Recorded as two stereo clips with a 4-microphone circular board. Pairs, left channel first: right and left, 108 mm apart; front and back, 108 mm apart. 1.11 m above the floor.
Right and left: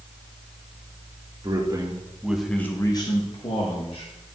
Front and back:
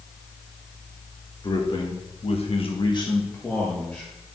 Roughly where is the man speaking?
Ahead left.